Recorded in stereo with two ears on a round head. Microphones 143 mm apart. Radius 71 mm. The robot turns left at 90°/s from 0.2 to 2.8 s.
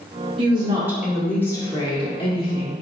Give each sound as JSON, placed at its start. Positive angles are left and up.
{"t": 0.4, "sound": "a woman speaking", "azimuth_deg": -110, "distance_m": 1.2}